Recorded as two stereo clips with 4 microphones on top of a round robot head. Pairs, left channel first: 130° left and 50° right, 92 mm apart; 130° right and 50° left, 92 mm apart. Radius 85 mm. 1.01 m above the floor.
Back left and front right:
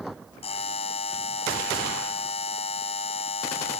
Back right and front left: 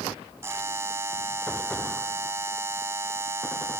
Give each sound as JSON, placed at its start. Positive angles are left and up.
{"t": 0.4, "sound": "a buzzer", "azimuth_deg": 115}